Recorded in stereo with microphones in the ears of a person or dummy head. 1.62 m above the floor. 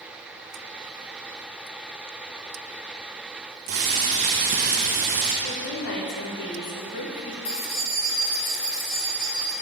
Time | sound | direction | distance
3.7 | boiling | 40° right (ahead or behind) | 0.9 m
5.4 | a woman speaking | 55° left (ahead or behind) | 1.3 m
7.5 | keys jangling | 80° left | 3 m